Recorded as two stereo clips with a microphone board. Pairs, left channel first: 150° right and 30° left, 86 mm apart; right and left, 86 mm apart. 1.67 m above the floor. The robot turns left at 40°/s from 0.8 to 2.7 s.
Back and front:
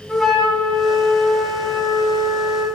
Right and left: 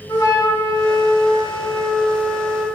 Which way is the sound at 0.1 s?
60° right.